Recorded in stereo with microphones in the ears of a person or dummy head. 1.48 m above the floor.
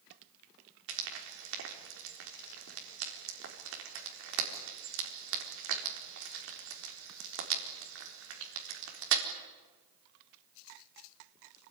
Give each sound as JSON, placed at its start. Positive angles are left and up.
{"t": 0.9, "sound": "frying", "side_deg": -70, "distance_m": 4.0}